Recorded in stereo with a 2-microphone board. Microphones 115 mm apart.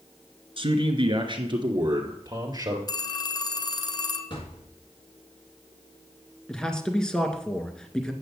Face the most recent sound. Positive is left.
turn(degrees=5)  # may be behind; listen again after turning